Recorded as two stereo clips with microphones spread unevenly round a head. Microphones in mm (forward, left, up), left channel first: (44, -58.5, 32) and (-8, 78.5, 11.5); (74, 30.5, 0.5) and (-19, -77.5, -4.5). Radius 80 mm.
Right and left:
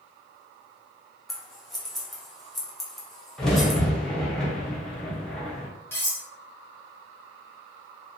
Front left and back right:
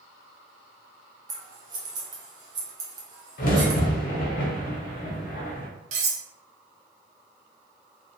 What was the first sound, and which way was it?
Scissors, 170° right.